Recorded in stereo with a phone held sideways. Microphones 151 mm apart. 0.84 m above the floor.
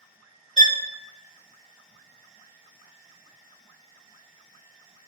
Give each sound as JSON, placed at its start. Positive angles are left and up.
{"t": 0.6, "sound": "a violin", "side_deg": -50, "distance_m": 0.7}